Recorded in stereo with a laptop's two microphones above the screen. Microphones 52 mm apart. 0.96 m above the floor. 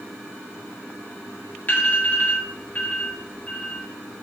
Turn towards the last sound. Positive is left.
turn(degrees=35)  # may be behind; listen again after turning